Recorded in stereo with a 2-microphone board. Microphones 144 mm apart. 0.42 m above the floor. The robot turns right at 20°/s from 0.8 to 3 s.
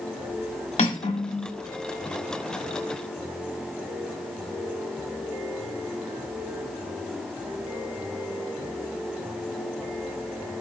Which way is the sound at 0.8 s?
50° left (ahead or behind).